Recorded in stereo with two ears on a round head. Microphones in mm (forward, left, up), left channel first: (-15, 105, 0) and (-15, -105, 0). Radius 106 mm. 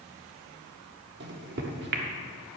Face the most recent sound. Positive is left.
turn(degrees=-45)  # may be behind; listen again after turning